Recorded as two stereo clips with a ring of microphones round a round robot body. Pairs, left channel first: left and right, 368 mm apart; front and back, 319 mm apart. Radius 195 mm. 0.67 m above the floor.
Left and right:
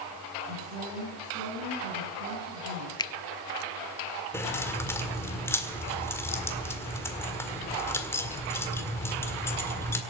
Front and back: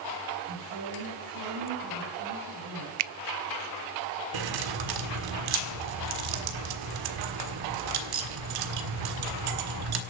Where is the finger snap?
170° left, 0.5 m.